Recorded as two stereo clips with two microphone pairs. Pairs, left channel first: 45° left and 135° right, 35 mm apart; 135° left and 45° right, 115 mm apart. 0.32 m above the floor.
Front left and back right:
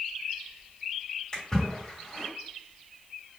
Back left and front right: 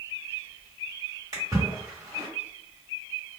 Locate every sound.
1.3 s a splash: 10° right, 1.9 m